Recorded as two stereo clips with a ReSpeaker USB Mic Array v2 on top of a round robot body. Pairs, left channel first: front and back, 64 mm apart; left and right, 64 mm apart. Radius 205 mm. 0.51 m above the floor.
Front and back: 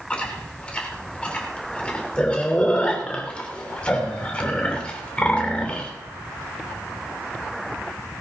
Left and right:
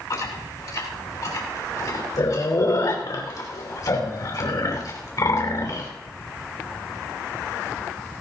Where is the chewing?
70° left, 3 m.